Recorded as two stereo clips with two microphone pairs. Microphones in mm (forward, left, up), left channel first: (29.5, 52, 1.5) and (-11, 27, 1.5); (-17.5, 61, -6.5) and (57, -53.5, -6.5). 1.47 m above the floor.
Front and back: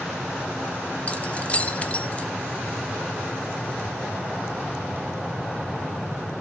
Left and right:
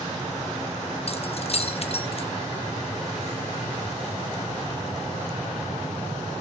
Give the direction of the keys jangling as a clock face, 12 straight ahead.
9 o'clock.